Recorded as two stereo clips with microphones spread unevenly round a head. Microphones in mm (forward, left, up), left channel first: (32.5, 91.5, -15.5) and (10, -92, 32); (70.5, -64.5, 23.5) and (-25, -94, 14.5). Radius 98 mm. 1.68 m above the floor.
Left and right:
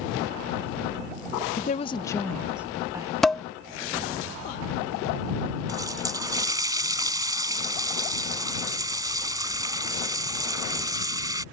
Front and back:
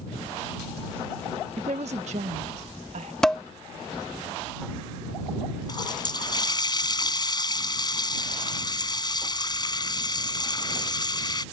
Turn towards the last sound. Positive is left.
turn(degrees=-25)